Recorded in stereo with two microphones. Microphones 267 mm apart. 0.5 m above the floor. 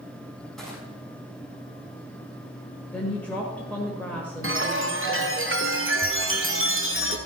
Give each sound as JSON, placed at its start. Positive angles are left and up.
{"t": 0.6, "sound": "crushing", "side_deg": 0, "distance_m": 5.0}
{"t": 2.9, "sound": "a woman speaking", "side_deg": 5, "distance_m": 1.7}
{"t": 4.4, "sound": "a chime", "side_deg": -50, "distance_m": 1.2}